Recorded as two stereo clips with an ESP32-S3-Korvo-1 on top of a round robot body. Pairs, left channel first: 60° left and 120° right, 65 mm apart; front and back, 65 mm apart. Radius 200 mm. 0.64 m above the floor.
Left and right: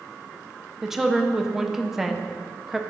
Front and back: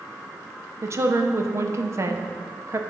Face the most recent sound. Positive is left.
turn(degrees=160)